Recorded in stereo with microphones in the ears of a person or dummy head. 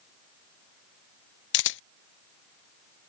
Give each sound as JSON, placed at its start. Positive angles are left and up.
{"t": 1.5, "sound": "a camera shutter", "side_deg": 65}